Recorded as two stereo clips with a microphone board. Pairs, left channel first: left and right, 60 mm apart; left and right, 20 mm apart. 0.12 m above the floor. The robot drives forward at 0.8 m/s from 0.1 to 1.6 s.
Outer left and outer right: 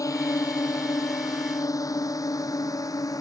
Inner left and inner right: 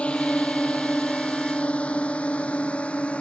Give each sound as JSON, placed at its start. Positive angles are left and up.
{"t": 0.0, "sound": "a drone", "side_deg": 70}